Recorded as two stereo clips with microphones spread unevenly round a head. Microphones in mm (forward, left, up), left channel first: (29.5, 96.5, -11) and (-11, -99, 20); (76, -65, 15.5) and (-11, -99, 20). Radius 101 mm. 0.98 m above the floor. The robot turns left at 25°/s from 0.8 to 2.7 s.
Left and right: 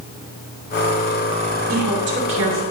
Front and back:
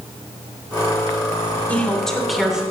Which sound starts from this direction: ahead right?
A woman speaking, at 1.7 s.